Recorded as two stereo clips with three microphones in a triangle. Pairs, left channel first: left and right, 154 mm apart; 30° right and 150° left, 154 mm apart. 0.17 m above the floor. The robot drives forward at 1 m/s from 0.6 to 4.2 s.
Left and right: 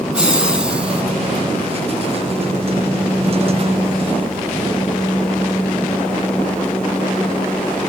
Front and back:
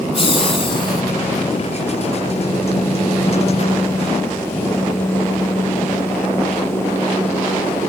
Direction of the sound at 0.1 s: 10° right.